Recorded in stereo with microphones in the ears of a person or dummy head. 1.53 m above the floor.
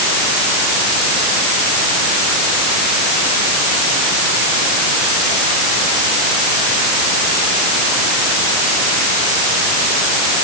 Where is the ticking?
I don't hear ticking.